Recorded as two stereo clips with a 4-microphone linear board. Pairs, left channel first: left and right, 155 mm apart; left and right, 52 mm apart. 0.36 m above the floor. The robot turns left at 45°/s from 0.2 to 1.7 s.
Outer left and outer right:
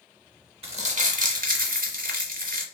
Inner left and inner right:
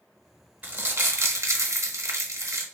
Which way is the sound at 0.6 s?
45° right.